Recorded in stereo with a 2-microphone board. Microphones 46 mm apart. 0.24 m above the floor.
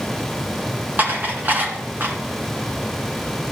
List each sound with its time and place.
1.0 s dishes clattering: 40° right (ahead or behind), 1.8 m